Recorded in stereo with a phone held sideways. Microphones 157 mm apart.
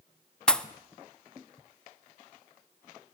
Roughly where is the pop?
Centre.